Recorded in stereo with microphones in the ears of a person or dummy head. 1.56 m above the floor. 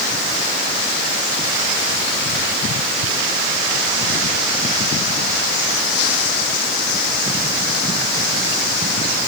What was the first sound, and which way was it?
Only background noise.